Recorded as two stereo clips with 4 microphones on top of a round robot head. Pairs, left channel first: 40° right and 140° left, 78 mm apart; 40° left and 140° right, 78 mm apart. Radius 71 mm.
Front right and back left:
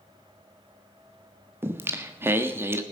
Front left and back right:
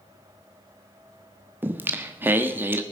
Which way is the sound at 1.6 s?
175° left.